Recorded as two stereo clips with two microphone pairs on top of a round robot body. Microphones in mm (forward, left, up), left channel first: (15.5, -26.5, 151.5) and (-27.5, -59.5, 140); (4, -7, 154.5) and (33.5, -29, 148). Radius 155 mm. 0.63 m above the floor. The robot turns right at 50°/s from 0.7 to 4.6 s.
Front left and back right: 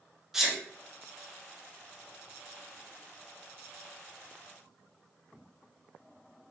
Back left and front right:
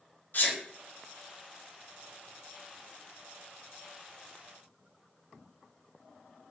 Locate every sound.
0.3 s a sneeze: 155° left, 0.9 m